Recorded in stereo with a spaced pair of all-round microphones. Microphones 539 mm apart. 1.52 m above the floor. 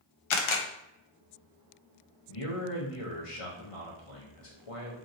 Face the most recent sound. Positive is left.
turn(degrees=75)  # may be behind; listen again after turning